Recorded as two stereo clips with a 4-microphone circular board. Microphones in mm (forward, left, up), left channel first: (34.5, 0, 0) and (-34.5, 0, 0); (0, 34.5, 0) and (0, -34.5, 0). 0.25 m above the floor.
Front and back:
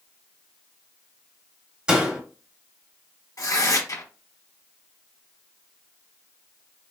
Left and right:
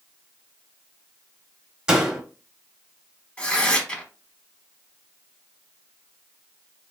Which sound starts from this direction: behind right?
A door slam, at 1.9 s.